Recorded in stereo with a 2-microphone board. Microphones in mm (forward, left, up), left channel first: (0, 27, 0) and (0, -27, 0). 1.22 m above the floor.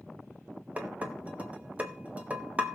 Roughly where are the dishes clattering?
Right.